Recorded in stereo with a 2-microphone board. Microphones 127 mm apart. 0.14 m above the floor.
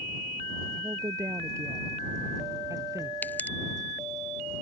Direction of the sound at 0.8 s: 25° right (ahead or behind).